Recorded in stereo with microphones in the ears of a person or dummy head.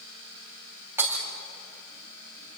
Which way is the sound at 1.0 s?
15° right (ahead or behind).